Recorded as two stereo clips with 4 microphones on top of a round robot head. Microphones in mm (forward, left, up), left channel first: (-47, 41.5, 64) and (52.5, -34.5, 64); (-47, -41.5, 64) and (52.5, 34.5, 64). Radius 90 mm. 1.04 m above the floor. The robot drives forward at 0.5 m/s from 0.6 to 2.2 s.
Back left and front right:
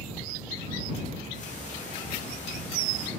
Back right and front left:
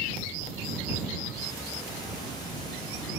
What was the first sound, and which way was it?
Ticking, 155° left.